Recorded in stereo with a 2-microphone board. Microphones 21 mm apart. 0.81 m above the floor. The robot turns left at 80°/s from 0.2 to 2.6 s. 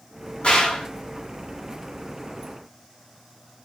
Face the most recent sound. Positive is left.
turn(degrees=-50)